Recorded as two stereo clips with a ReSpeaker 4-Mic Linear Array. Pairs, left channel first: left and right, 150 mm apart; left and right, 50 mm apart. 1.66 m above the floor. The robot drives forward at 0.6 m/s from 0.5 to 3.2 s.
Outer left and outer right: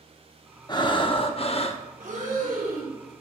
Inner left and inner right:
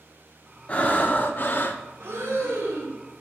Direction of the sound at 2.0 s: 60° right (ahead or behind).